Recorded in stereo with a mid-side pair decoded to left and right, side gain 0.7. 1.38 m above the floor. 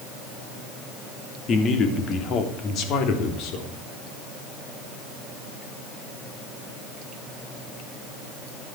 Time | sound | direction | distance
1.5 | a man speaking | 40° left | 2.5 m